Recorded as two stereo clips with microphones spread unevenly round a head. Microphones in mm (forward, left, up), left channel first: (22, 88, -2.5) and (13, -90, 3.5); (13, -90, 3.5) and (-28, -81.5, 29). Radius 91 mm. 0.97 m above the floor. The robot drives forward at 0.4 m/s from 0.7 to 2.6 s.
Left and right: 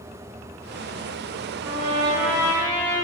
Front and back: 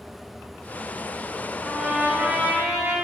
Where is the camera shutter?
No camera shutter in this recording.